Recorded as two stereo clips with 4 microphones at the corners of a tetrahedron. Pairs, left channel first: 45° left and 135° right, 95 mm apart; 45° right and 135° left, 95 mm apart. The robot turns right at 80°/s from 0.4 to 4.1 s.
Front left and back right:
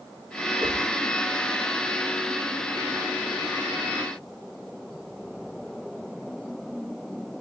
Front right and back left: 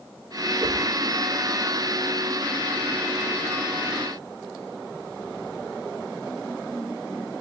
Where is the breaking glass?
No breaking glass in this recording.